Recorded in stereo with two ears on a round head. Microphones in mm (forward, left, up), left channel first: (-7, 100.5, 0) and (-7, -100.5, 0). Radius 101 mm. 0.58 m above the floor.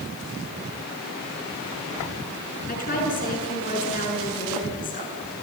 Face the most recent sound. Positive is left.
turn(degrees=40)  # may be behind; listen again after turning